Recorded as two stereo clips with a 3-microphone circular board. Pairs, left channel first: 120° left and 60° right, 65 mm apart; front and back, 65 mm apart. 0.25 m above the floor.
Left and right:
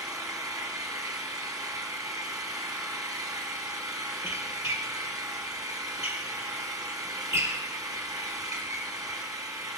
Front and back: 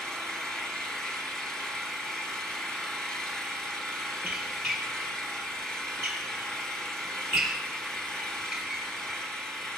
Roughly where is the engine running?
Right.